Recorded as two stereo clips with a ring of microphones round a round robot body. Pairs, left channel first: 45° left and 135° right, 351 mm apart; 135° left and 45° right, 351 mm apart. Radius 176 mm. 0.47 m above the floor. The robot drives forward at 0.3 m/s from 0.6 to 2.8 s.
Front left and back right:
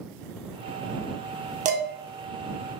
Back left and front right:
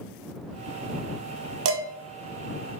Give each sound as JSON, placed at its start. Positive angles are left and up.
{"t": 1.6, "sound": "dishes clattering", "azimuth_deg": -75, "distance_m": 0.5}